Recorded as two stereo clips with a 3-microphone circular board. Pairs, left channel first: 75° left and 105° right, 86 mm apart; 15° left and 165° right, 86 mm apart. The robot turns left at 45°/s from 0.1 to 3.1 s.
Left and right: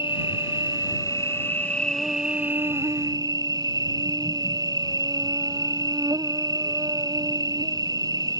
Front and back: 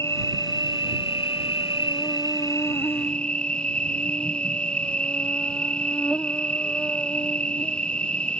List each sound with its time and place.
0.0 s an insect: 70° left; by 8.4 s 65° right